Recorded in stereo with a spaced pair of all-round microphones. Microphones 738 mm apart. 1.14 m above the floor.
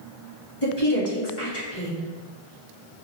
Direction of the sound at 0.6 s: 40° left (ahead or behind).